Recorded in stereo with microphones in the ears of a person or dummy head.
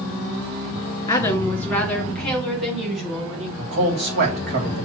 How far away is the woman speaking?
About 1.9 m.